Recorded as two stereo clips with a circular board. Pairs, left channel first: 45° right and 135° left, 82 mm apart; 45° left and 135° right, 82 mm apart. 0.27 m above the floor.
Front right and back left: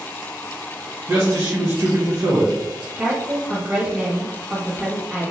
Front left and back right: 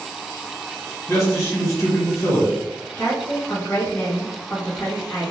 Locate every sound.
1.1 s a man speaking: 85° left, 1.7 m
3.0 s a woman speaking: 90° left, 1.4 m